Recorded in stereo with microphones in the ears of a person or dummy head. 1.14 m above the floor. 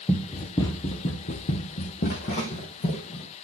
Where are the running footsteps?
10° left (ahead or behind), 1.3 m; by 3.3 s 40° left (ahead or behind), 2.5 m.